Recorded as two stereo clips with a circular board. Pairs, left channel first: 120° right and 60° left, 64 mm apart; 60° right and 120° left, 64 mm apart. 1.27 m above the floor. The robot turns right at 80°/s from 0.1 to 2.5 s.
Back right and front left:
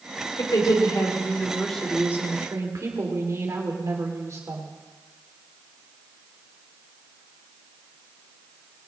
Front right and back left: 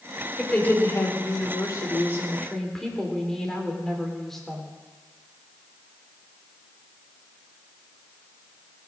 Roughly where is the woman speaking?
Behind right.